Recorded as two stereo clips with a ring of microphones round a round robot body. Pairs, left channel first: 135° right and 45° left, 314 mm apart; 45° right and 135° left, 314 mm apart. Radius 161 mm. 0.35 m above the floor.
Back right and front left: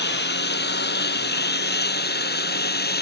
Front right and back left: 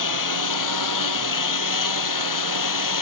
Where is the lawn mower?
75° right.